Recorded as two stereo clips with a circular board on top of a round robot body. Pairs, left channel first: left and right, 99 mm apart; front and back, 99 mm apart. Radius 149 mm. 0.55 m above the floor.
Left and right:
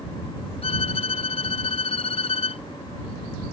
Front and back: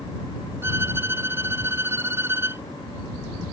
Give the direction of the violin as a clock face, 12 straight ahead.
8 o'clock.